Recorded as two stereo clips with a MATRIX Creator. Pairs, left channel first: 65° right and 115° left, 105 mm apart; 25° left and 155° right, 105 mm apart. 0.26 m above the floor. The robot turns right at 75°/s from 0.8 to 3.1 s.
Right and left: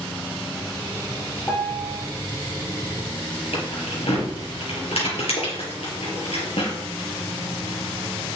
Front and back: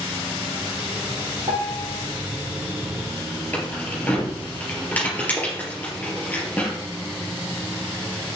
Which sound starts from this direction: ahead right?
Keys jangling, at 3.5 s.